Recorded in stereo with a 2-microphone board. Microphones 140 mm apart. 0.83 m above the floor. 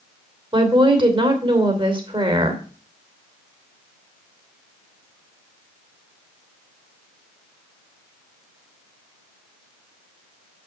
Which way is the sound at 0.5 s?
35° right (ahead or behind).